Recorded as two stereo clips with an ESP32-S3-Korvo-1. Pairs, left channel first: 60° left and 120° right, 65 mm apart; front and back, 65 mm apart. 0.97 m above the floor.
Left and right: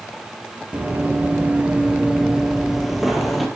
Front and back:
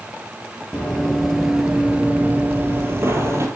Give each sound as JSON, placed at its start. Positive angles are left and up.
{"t": 0.7, "sound": "running footsteps", "azimuth_deg": -70, "distance_m": 1.2}